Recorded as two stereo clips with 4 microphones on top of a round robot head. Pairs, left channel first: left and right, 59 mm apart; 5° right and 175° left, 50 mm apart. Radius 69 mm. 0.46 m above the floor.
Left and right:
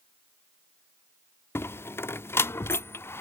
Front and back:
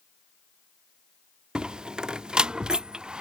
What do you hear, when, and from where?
1.6 s a door slam: 110° left